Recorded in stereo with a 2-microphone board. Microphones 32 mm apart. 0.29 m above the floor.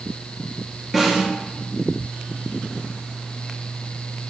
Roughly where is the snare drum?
Centre.